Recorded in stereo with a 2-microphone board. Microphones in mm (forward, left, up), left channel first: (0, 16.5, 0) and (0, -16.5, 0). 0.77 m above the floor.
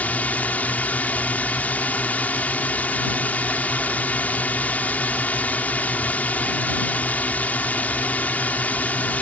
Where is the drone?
55° left (ahead or behind).